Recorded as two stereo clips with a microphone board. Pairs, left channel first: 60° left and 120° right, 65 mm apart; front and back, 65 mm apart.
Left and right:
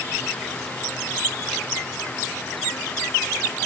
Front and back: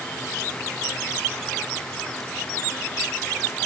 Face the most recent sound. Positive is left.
No sound to turn to.